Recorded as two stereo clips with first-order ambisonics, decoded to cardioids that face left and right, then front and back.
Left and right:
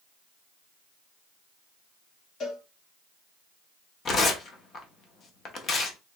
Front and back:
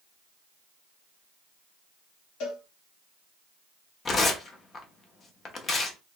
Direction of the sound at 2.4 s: 30° left.